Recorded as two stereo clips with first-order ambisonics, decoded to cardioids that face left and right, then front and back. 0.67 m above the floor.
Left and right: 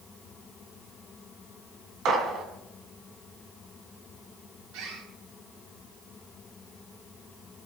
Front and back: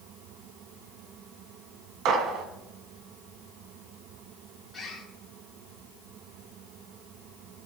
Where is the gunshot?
140° right, 3 m.